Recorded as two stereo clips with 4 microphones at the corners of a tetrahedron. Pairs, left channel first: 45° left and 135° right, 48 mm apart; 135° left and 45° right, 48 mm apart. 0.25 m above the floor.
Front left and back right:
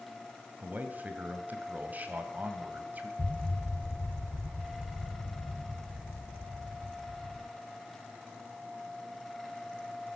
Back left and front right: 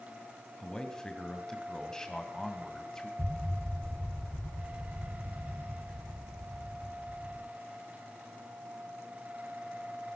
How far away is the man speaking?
About 1.8 m.